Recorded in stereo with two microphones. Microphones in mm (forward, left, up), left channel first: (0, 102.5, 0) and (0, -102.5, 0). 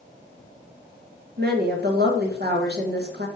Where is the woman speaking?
50° right (ahead or behind), 1.0 m.